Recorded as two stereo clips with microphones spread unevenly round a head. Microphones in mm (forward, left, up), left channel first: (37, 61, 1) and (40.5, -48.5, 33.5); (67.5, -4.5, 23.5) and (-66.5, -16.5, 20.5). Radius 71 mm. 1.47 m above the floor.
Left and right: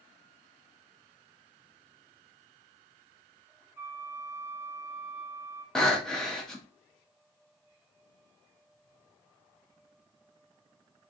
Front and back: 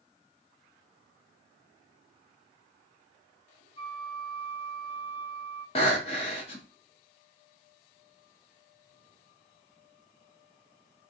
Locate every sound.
3.8 s a flute: 40° right, 0.9 m
5.8 s breathing: 10° right, 1.0 m